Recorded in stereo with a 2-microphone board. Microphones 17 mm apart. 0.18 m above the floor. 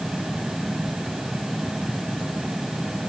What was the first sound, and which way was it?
Only background noise.